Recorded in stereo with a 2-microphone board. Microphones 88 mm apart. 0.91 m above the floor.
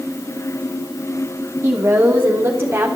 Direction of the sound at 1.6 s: 30° right (ahead or behind).